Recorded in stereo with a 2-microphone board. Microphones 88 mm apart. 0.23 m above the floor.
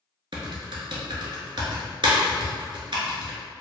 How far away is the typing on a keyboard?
About 1.2 m.